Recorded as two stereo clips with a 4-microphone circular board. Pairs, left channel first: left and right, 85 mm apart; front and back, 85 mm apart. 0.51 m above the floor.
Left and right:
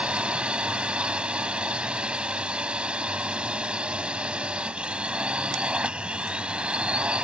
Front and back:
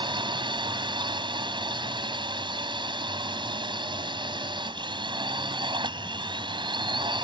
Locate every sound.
0.0 s a drone: 170° right